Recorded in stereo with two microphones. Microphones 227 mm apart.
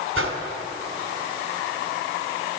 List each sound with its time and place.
0.1 s a whoosh: 70° right (ahead or behind), 1.6 m